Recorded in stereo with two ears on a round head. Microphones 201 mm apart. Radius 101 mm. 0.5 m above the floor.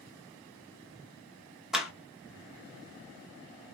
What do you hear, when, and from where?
1.7 s a clap: centre (ahead or behind), 0.7 m